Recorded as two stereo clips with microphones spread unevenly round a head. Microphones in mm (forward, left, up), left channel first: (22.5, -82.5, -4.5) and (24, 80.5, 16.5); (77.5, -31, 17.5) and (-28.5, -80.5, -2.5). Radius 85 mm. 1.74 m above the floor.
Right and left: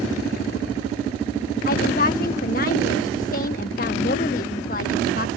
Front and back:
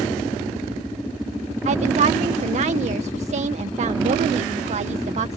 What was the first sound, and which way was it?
A woman speaking, 135° right.